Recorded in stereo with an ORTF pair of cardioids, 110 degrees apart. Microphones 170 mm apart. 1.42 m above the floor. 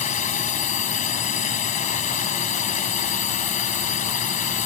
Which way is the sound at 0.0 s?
45° left.